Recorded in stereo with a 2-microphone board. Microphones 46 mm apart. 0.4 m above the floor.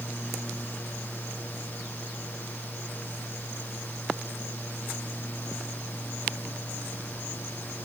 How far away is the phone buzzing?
No phone buzzing in this recording.